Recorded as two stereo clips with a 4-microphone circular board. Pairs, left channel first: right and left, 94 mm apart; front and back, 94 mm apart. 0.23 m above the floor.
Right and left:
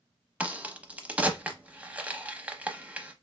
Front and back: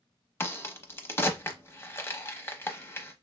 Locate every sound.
0.4 s a crack: 30° left, 0.7 m